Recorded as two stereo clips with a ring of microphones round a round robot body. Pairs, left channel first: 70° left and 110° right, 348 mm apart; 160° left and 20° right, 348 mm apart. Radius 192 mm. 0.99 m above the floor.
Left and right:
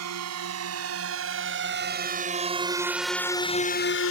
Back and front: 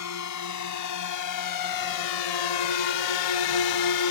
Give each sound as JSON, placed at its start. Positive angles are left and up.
{"t": 0.0, "sound": "a drone", "azimuth_deg": -160}